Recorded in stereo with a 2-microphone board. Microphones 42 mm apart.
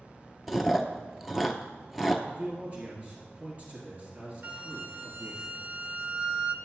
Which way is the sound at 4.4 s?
30° right (ahead or behind).